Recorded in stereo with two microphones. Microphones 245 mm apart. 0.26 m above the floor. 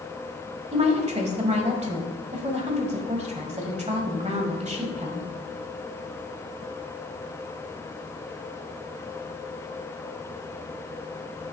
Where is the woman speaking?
25° right (ahead or behind), 1.3 m.